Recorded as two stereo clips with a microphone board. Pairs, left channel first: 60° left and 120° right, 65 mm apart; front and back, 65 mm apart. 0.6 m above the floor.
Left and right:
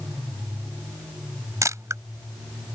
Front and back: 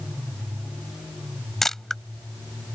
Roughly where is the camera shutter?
Right.